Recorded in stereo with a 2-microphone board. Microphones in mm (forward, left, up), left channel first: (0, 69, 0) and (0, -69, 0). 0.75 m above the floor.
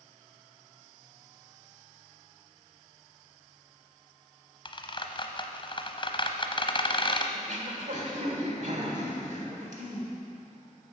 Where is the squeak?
35° left (ahead or behind), 0.8 m.